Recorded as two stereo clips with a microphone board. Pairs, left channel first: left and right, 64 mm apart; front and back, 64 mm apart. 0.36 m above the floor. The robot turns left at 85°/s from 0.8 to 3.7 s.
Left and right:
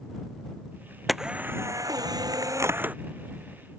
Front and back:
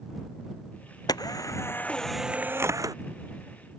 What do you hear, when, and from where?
1.1 s a camera shutter: straight ahead; by 3.0 s 160° right